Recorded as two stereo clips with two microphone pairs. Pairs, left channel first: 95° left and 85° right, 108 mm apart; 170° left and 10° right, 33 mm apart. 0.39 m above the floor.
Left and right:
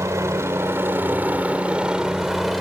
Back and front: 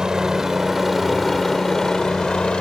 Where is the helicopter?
60° right; by 2.6 s straight behind.